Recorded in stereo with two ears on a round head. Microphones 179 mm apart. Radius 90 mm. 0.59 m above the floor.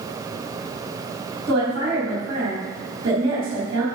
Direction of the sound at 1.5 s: 55° right (ahead or behind).